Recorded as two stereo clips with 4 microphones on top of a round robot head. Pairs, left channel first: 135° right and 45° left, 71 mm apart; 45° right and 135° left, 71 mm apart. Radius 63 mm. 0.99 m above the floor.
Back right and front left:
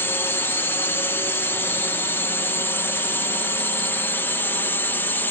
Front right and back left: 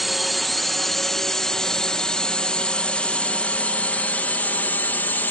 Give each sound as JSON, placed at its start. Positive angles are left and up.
{"t": 0.0, "sound": "a drone", "azimuth_deg": -135}